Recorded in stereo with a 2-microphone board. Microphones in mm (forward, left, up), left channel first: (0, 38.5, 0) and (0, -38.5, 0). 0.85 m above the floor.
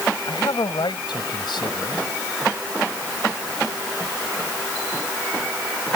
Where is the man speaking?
80° left.